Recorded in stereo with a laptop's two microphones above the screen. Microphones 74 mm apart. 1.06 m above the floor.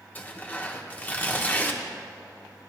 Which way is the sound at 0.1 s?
25° left (ahead or behind).